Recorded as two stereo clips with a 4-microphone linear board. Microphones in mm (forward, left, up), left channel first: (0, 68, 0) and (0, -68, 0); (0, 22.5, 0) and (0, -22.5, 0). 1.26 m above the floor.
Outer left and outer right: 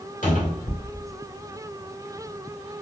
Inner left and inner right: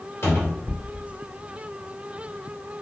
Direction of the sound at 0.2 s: 65° left (ahead or behind).